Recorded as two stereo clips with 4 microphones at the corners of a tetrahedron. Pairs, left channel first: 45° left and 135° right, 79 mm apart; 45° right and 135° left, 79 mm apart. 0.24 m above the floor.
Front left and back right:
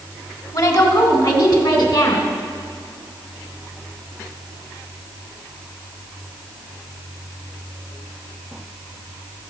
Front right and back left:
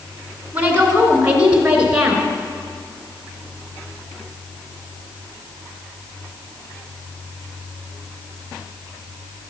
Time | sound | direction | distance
0.5 | a woman speaking | 70° left | 2.5 m